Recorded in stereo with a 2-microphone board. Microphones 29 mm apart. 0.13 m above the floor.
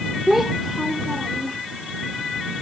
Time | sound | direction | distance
0.3 | a child speaking | 5° right (ahead or behind) | ?